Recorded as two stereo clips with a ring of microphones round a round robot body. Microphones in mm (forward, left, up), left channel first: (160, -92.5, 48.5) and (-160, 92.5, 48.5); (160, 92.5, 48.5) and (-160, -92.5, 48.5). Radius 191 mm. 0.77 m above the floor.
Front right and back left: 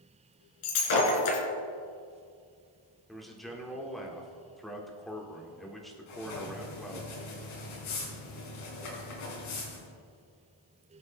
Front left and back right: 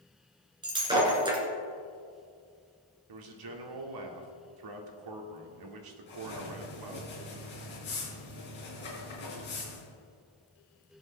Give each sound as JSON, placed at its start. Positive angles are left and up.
{"t": 0.6, "sound": "breaking glass", "azimuth_deg": -70, "distance_m": 3.0}
{"t": 3.1, "sound": "a man speaking", "azimuth_deg": -120, "distance_m": 1.7}
{"t": 6.1, "sound": "writing", "azimuth_deg": -35, "distance_m": 4.5}